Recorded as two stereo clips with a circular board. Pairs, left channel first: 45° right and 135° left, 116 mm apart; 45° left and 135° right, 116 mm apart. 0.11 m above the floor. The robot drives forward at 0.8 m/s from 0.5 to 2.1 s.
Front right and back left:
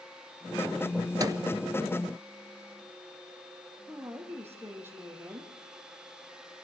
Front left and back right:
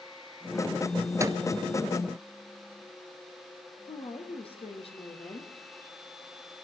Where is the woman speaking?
65° left, 4.5 m.